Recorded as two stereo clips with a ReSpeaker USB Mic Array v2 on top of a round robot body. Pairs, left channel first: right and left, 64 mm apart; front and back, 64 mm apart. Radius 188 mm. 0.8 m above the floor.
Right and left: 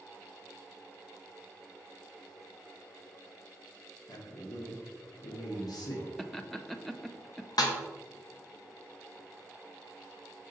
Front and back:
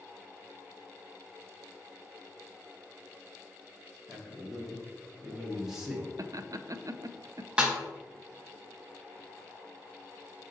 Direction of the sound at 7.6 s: 105° right.